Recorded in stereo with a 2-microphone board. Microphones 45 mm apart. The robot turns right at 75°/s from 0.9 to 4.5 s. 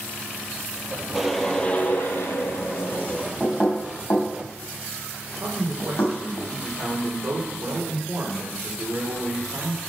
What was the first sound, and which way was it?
A whoosh, 10° right.